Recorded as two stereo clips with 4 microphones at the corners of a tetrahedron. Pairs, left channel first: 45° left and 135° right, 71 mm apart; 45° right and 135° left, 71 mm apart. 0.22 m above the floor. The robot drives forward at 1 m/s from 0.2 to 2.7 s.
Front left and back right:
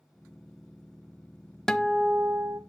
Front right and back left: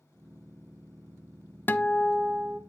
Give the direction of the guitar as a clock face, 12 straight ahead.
1 o'clock.